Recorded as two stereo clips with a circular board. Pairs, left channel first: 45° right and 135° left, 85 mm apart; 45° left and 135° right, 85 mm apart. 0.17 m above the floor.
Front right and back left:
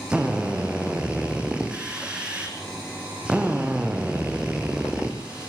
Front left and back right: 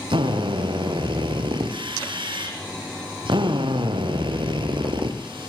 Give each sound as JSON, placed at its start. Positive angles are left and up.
{"t": 0.1, "sound": "a drill", "azimuth_deg": -145, "distance_m": 4.0}